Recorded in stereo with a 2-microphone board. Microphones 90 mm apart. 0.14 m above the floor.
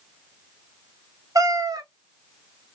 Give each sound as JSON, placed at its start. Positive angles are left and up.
{"t": 1.4, "sound": "a cat meowing", "side_deg": -40, "distance_m": 0.5}